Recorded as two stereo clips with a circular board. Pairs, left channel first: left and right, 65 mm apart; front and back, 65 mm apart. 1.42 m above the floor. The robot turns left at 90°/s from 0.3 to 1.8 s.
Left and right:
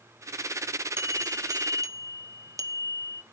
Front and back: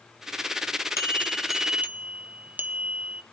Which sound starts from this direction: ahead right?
A bell, at 1.0 s.